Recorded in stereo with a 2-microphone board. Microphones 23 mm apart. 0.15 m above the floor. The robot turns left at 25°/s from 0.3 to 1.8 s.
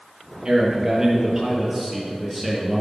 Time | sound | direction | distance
0.5 | a man speaking | 140° right | 3 m